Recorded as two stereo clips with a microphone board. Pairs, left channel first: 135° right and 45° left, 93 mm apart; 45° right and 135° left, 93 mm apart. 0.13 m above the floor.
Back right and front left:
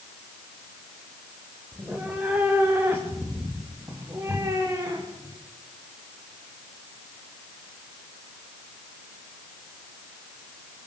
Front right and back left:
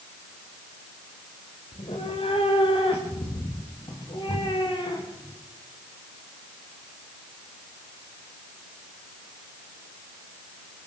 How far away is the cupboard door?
I don't hear a cupboard door.